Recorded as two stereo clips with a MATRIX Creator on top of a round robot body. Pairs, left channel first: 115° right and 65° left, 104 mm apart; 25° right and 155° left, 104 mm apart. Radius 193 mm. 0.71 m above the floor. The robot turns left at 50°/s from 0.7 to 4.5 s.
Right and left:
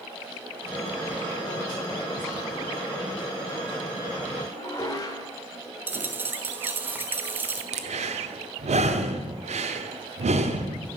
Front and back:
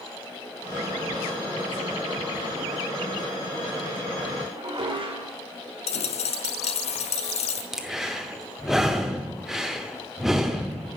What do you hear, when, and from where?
4.5 s dishes clattering: 165° right, 2.5 m
5.9 s a dropped coin: 5° right, 0.5 m
7.7 s breathing: 70° left, 0.9 m